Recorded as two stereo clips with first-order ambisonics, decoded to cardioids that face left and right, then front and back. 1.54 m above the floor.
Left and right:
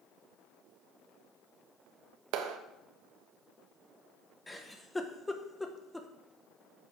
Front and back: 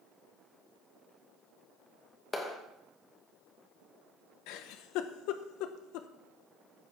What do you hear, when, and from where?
2.3 s a clap: 75° right, 1.4 m
4.5 s a giggle: 10° left, 0.9 m